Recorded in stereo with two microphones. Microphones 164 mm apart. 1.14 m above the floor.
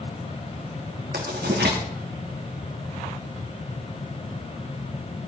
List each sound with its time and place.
1.1 s writing: 80° right, 2.5 m